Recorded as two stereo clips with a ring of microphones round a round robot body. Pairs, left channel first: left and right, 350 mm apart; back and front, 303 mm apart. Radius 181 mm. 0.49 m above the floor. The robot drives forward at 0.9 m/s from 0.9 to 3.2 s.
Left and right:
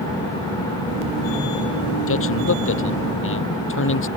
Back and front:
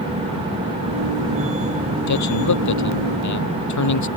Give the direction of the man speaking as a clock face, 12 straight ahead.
7 o'clock.